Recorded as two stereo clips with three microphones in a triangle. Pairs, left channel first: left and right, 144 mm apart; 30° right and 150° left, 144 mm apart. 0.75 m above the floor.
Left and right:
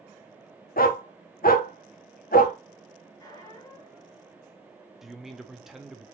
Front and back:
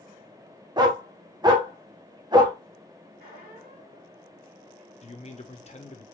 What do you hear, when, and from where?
0.8 s a dog barking: 90° left, 0.6 m
3.2 s a squeak: 155° left, 1.8 m
5.0 s a man speaking: straight ahead, 0.7 m